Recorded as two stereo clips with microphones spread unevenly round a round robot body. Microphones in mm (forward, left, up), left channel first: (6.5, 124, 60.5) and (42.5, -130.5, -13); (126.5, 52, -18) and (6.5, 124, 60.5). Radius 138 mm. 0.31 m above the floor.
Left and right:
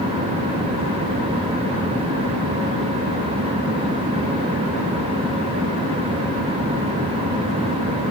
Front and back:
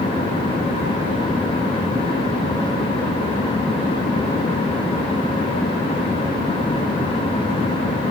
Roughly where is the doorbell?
No doorbell in this recording.